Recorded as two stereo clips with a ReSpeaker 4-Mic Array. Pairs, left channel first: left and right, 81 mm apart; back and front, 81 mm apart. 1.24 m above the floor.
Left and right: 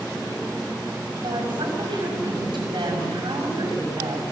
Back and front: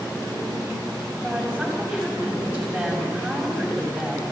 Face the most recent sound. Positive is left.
turn(degrees=-75)